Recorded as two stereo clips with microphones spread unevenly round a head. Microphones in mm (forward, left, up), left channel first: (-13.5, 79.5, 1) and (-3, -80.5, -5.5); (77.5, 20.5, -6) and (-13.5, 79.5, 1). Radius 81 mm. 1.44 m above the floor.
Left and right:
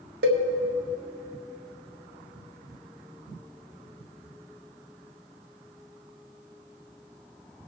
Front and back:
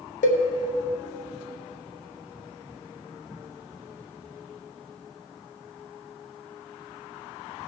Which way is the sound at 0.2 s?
55° right.